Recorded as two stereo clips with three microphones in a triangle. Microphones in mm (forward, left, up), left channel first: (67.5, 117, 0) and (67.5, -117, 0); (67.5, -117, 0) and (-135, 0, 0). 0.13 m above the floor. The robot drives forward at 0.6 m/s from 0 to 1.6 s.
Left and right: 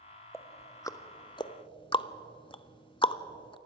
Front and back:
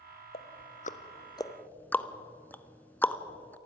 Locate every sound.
0.3 s ticking: 10° left, 1.1 m; by 3.6 s 45° left, 0.5 m